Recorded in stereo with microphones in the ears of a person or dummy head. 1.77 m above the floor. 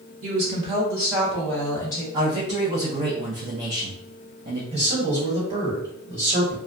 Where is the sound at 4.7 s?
30° right (ahead or behind), 1.5 m.